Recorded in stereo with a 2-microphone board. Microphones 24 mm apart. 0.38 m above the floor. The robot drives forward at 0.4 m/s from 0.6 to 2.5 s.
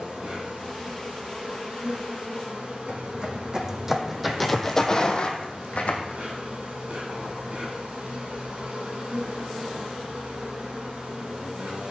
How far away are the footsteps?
About 1.4 m.